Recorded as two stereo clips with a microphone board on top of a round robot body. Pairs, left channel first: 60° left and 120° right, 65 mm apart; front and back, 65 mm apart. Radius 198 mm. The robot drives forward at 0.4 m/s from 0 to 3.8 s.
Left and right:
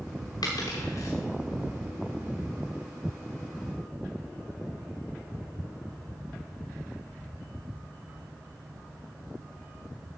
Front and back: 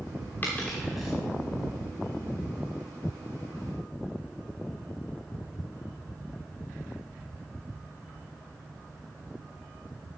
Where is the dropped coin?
65° left, 0.7 m; by 1.1 s 100° left, 0.7 m.